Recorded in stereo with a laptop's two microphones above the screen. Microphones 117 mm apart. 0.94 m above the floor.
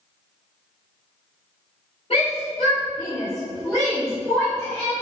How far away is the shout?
About 3 m.